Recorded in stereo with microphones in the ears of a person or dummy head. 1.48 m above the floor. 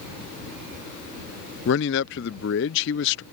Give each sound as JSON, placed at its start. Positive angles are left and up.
{"t": 1.6, "sound": "a man speaking", "side_deg": 60}